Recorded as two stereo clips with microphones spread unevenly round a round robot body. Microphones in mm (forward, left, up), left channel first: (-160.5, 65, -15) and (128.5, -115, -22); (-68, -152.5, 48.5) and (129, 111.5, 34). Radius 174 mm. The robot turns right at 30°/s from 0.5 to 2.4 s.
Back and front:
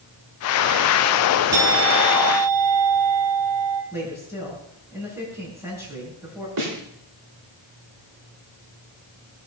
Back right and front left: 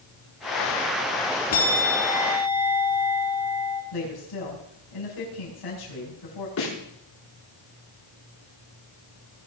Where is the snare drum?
75° right, 6 m.